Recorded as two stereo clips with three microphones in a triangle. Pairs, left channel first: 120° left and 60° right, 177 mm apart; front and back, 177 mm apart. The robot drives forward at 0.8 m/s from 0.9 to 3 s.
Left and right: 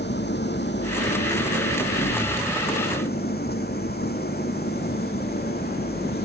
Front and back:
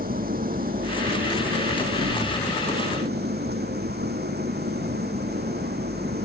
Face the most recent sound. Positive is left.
turn(degrees=150)